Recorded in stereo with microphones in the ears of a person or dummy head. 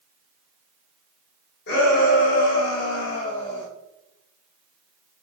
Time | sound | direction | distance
1.7 | a shout | 55° left (ahead or behind) | 1.4 m